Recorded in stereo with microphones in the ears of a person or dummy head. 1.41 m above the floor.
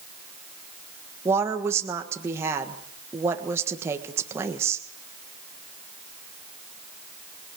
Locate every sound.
1.2 s a woman speaking: 15° right (ahead or behind), 1.5 m